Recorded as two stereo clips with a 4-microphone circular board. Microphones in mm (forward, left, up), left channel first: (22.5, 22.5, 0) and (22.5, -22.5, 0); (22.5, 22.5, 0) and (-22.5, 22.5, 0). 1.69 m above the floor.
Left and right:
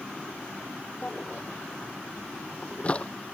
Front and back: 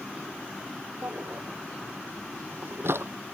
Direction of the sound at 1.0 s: 155° left.